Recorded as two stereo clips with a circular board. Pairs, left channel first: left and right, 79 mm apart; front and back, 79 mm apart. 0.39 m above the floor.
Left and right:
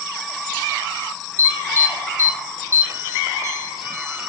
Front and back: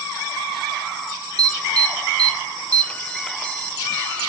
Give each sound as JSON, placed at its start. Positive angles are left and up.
{"t": 1.4, "sound": "an alarm", "azimuth_deg": -65, "distance_m": 1.2}